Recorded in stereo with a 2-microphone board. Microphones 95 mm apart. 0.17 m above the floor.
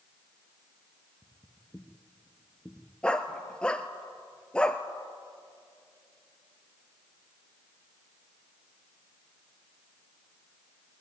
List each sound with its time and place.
1.2 s footsteps: 25° left (ahead or behind), 1.4 m; by 2.9 s 10° right (ahead or behind), 1.5 m
3.0 s a dog barking: 10° left (ahead or behind), 1.1 m